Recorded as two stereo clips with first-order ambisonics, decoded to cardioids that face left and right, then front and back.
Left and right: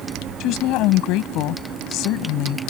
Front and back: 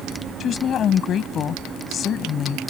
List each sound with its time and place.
0.4 s a woman speaking: 60° left